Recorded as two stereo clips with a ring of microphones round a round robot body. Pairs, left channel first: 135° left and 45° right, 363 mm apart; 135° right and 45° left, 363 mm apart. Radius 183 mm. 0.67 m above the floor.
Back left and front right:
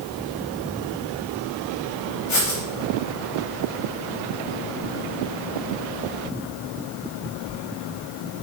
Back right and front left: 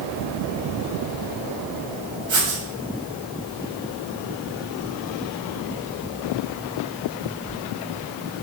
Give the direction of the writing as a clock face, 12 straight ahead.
8 o'clock.